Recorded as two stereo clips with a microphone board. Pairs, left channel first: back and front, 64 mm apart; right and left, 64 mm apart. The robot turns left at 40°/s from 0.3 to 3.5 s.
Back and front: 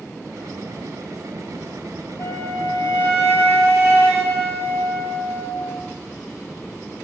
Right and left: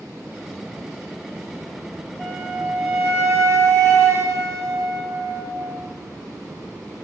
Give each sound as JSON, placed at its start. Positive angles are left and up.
{"t": 2.2, "sound": "a flute", "azimuth_deg": 175, "distance_m": 2.0}